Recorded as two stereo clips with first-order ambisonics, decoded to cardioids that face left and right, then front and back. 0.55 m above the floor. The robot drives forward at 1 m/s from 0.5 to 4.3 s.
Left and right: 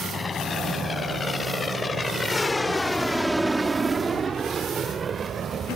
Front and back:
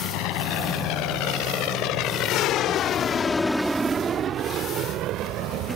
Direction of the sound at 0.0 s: 20° left.